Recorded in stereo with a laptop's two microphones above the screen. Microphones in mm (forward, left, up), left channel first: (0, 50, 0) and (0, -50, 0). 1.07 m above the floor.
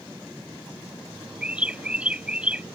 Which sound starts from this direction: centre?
A bird, at 1.4 s.